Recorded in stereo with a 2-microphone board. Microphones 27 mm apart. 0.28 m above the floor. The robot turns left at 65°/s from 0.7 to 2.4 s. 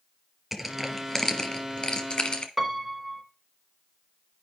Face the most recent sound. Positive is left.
turn(degrees=-10)  # may be behind; listen again after turning